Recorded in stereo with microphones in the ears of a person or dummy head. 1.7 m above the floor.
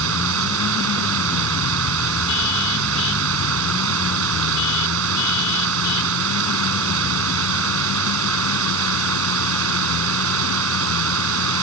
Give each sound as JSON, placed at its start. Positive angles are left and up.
{"t": 0.0, "sound": "running water", "side_deg": -75}